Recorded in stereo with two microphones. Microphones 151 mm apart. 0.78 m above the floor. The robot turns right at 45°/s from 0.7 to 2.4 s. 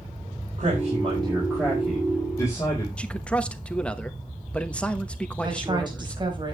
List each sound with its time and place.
0.6 s a man speaking: 55° right, 4 m; by 2.9 s 20° left, 4 m
3.0 s a man speaking: 10° left (ahead or behind), 1.0 m
5.4 s a woman speaking: 30° right (ahead or behind), 4.5 m